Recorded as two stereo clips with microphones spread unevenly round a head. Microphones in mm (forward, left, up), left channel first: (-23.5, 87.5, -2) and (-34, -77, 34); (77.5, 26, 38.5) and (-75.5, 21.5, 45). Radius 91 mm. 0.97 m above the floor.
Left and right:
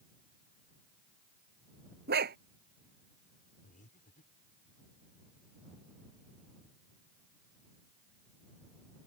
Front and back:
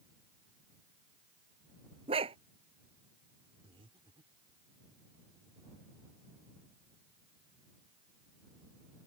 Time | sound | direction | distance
2.1 | a dog barking | 120° right | ?
3.6 | breathing | 125° left | ?